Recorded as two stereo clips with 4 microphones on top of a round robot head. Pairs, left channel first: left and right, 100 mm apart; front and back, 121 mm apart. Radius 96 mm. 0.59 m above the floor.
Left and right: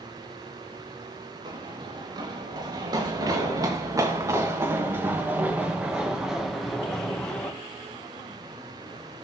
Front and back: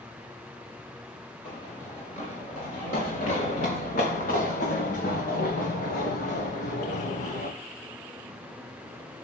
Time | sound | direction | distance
1.4 | running footsteps | 50° right | 6 m